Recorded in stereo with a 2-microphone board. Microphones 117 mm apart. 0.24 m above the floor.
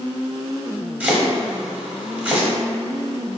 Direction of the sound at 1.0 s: 10° right (ahead or behind).